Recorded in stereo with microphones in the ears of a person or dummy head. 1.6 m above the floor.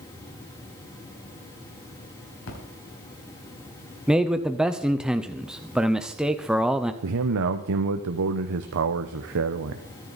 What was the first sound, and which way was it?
A splash, 75° left (ahead or behind).